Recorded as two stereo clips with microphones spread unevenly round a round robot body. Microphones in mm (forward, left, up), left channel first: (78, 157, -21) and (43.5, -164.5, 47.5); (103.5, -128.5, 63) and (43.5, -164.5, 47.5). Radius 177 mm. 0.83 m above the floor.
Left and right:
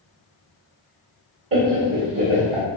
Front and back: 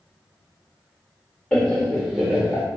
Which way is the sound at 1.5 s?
65° right.